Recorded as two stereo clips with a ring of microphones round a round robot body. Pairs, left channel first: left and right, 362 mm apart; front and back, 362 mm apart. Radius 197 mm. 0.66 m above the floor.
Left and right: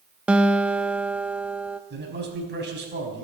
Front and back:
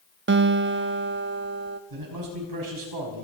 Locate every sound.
0.3 s a guitar: 175° right, 0.6 m
1.9 s a man speaking: 150° right, 5 m